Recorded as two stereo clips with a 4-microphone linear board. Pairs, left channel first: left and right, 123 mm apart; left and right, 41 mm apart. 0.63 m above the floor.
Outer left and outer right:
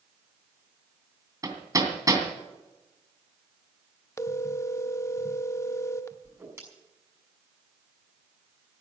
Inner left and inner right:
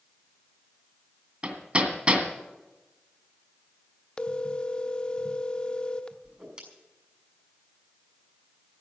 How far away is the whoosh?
About 6 m.